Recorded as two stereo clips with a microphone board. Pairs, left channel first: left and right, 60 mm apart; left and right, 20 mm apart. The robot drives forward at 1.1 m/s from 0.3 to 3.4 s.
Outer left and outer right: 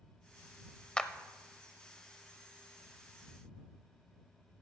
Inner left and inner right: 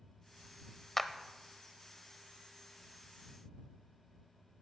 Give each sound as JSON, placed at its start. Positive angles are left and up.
{"t": 1.0, "sound": "a clap", "side_deg": 15, "distance_m": 0.7}